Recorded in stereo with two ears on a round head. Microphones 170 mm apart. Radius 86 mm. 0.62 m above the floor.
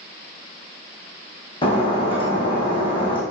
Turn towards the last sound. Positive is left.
turn(degrees=30)  # may be behind; listen again after turning